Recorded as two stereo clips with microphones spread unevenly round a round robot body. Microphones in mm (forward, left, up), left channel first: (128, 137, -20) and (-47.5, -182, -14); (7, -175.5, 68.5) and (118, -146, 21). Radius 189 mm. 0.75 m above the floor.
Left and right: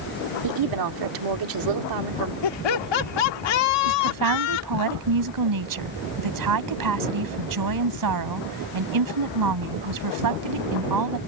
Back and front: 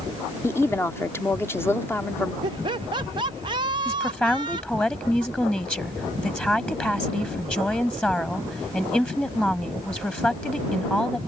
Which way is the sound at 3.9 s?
80° right.